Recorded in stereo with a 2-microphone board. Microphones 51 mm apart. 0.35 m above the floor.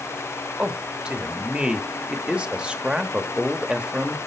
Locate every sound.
0.6 s a man speaking: 20° right (ahead or behind), 1.0 m